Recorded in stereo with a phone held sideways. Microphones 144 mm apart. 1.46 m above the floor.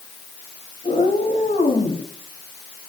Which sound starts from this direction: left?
A cat meowing, at 0.8 s.